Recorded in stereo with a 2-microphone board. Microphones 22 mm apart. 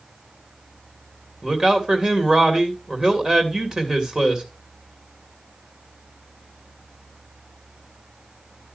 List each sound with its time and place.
1.4 s a man speaking: 35° right (ahead or behind), 2.5 m